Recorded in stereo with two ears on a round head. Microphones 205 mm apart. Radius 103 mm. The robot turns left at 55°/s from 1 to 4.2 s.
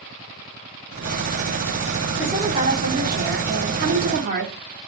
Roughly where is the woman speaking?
Ahead.